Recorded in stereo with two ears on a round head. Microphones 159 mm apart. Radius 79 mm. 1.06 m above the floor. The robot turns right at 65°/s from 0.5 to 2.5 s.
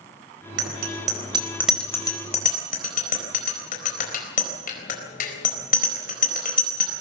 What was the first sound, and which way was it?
A bicycle bell, 75° right (ahead or behind).